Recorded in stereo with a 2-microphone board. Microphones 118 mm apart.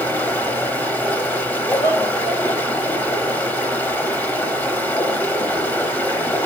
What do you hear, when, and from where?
0.0 s running water: 15° left (ahead or behind), 0.9 m
1.7 s laughter: 60° left (ahead or behind), 3 m